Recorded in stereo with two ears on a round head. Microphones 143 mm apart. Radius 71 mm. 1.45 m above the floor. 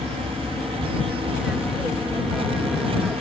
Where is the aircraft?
Centre (ahead or behind).